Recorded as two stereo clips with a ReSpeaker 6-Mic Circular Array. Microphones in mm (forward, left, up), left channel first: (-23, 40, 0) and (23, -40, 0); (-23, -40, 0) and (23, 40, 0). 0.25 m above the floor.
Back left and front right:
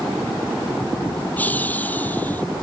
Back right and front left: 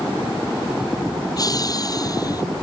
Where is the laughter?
170° right.